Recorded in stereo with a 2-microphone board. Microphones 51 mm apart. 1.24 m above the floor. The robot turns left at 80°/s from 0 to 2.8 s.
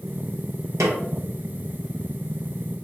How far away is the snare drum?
About 0.9 m.